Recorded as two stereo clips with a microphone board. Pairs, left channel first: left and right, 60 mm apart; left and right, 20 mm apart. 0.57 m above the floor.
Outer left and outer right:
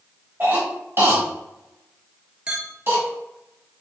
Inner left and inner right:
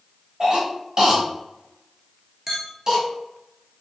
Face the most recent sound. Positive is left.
turn(degrees=-15)  # may be behind; listen again after turning